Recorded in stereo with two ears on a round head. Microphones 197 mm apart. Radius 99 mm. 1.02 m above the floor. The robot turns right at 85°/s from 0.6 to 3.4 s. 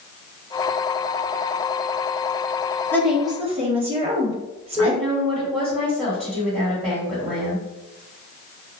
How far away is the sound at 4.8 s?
About 1.8 m.